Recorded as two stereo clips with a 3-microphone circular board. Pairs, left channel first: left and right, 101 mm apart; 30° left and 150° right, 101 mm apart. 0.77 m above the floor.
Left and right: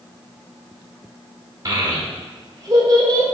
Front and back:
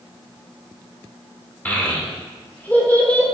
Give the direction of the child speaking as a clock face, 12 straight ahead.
1 o'clock.